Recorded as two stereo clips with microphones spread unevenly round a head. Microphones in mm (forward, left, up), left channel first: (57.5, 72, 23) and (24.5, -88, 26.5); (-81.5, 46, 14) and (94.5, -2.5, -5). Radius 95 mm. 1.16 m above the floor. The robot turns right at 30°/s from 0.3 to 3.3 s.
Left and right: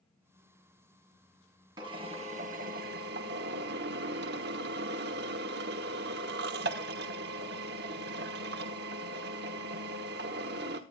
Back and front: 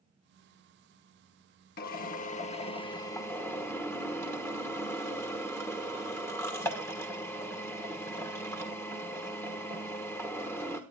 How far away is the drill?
About 1.1 m.